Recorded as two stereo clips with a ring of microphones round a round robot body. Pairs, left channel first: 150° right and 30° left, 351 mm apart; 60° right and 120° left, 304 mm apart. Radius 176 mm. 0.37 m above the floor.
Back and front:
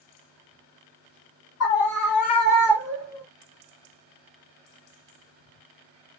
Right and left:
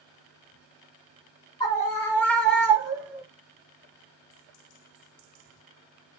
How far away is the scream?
About 1.3 m.